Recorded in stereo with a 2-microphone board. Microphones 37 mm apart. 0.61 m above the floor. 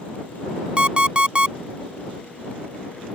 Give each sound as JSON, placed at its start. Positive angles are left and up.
{"t": 0.8, "sound": "an alarm clock", "side_deg": -25}